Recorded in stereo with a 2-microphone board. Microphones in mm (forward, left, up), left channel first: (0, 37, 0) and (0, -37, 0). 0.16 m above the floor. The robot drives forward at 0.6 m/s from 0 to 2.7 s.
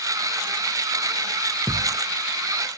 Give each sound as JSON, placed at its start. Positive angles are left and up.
{"t": 1.7, "sound": "a thud", "side_deg": 10}